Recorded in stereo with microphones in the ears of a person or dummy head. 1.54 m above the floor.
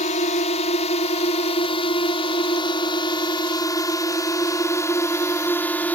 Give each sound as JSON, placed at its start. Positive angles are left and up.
{"t": 0.0, "sound": "a drone", "side_deg": 35}